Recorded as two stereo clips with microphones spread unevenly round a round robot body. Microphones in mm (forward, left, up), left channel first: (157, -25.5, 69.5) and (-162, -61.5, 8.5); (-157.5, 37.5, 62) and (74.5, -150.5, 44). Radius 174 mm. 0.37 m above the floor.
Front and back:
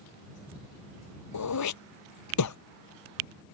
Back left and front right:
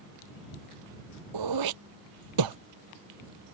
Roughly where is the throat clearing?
Ahead right.